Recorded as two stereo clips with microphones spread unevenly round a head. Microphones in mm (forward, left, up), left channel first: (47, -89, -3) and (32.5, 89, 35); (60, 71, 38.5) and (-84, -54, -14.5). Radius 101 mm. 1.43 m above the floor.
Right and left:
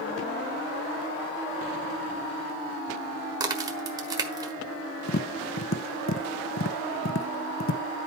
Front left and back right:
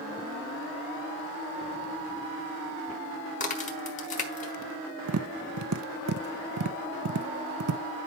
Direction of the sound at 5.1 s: 120° right.